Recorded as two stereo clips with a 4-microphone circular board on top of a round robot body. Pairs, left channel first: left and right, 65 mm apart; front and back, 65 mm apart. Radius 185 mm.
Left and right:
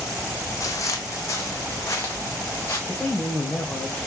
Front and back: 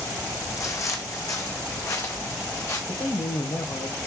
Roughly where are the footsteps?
Ahead left.